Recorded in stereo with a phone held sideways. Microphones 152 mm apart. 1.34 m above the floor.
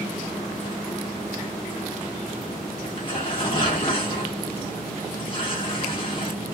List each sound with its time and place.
2.8 s tearing paper: 35° left (ahead or behind), 1.2 m